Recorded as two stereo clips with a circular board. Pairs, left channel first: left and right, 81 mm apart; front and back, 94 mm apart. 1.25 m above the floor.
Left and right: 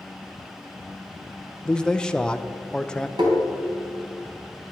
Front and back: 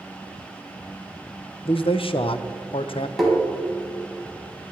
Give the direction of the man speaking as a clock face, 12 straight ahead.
12 o'clock.